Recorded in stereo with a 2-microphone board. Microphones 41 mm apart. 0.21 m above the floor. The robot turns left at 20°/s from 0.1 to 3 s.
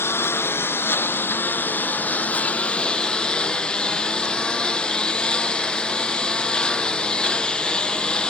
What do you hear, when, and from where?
0.0 s a lawn mower: 80° left; by 8.3 s 20° left